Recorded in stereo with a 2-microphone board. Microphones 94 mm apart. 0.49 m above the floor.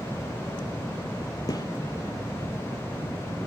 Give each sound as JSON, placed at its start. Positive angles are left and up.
{"t": 1.5, "sound": "a gunshot", "side_deg": 40, "distance_m": 4.5}